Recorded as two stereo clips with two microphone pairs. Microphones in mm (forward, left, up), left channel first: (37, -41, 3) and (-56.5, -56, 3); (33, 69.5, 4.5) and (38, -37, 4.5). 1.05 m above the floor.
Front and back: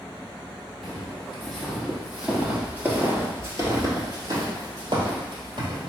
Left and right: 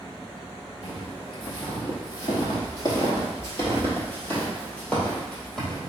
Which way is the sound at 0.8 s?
85° left.